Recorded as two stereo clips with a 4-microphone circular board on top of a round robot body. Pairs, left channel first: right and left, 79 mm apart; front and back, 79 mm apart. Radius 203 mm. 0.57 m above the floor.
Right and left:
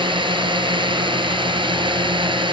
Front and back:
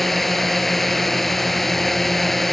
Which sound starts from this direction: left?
A drone, at 0.0 s.